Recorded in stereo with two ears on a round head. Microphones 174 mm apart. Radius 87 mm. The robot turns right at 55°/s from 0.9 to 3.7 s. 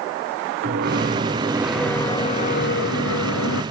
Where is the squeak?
45° right, 1.8 m; by 3.6 s 105° left, 1.8 m.